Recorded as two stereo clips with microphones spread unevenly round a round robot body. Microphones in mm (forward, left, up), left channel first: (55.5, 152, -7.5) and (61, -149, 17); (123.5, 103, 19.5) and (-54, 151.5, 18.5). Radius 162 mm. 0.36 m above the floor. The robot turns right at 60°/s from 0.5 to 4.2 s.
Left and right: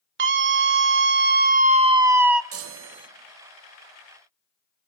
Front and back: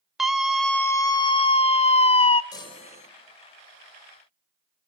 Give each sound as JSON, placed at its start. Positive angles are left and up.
{"t": 0.2, "sound": "a scream", "azimuth_deg": -110, "distance_m": 0.9}
{"t": 2.5, "sound": "a chime", "azimuth_deg": -80, "distance_m": 1.5}